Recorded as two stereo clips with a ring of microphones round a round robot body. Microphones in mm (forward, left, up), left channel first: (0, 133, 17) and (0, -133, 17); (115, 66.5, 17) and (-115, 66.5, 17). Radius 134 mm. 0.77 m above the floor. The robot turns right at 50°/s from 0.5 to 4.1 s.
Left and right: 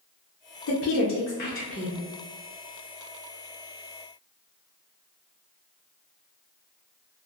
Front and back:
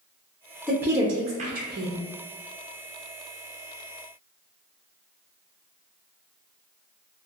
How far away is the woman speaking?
About 0.6 m.